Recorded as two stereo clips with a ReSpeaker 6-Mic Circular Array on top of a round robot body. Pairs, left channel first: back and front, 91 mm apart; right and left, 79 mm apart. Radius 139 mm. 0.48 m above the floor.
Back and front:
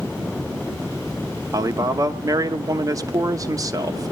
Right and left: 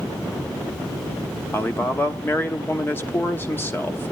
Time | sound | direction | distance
1.5 | a man speaking | 35° right | 1.0 m